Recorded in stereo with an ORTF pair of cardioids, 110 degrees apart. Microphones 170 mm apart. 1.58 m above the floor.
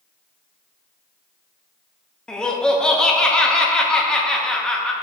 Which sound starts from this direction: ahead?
Laughter, at 2.3 s.